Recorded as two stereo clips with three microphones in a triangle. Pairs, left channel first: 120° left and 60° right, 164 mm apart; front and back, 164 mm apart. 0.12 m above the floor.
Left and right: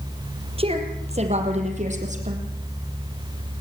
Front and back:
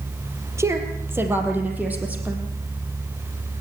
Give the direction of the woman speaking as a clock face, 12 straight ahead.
4 o'clock.